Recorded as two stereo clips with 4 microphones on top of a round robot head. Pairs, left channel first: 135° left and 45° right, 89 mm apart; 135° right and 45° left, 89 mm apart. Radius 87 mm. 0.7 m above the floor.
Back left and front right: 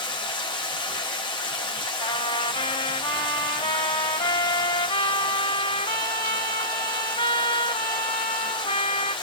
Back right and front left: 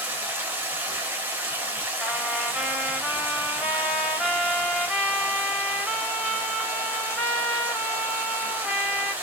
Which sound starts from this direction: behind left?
A trumpet, at 2.0 s.